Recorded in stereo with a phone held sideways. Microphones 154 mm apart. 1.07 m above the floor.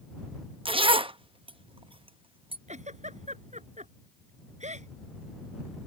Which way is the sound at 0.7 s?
35° right (ahead or behind).